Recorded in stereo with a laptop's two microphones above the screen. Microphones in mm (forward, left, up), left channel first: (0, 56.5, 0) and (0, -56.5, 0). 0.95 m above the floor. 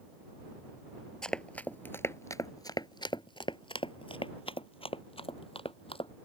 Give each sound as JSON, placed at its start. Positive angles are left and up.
{"t": 1.2, "sound": "running footsteps", "side_deg": 5}